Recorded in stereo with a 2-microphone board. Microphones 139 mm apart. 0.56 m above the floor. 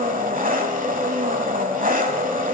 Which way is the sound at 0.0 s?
80° right.